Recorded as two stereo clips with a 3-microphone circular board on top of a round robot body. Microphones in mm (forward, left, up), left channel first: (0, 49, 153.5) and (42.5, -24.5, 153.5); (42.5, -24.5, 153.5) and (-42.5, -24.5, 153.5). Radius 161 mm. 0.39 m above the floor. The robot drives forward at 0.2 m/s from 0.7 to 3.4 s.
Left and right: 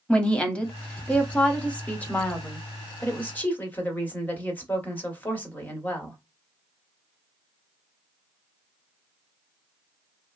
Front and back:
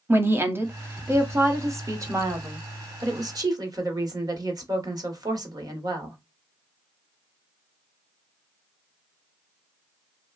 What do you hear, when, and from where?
0.1 s a woman speaking: straight behind, 1.1 m